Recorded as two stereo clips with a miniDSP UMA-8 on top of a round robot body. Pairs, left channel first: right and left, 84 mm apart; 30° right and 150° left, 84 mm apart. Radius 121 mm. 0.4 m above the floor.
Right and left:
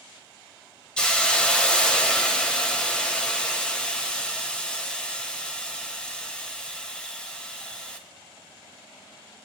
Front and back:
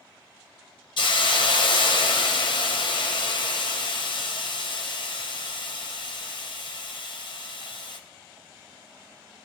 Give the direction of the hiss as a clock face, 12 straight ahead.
12 o'clock.